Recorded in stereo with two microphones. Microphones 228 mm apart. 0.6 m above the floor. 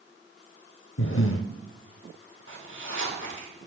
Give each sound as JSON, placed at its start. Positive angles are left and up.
{"t": 1.0, "sound": "breathing", "side_deg": 65, "distance_m": 0.6}
{"t": 2.5, "sound": "a zipper", "side_deg": 60, "distance_m": 2.0}